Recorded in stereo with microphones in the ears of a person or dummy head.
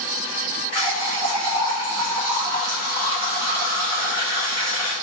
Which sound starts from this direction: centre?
A running tap, at 0.7 s.